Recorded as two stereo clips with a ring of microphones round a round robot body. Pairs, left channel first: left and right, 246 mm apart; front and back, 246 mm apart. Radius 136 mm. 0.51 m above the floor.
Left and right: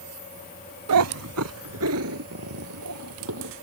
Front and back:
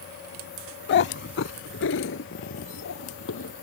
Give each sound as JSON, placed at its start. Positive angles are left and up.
{"t": 0.9, "sound": "a cat meowing", "azimuth_deg": -55}